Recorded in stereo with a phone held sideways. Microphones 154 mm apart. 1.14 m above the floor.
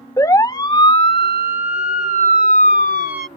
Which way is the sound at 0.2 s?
20° left (ahead or behind).